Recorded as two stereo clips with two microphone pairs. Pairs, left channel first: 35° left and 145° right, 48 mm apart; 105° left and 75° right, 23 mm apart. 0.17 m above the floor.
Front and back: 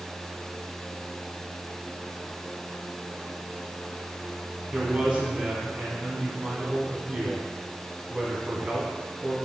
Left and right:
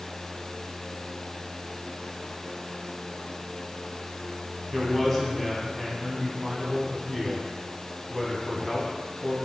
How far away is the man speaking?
About 1.0 m.